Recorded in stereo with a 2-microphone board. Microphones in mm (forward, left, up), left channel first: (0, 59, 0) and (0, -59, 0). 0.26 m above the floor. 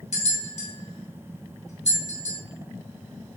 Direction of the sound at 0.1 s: 70° left (ahead or behind).